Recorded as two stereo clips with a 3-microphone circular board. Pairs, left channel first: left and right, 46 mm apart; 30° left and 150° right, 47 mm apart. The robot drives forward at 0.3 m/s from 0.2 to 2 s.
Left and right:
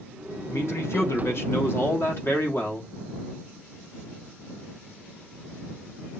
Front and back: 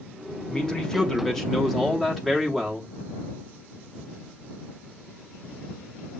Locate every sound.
0.5 s a man speaking: 100° left, 1.3 m; by 2.9 s 120° left, 1.4 m